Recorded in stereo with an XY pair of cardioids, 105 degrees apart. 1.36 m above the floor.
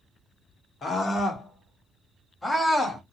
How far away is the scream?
About 1.7 m.